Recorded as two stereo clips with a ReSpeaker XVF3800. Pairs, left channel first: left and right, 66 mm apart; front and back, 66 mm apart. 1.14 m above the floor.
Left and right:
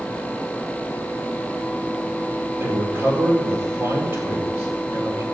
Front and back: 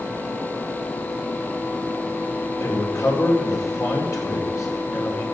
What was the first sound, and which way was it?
A man speaking, 40° right.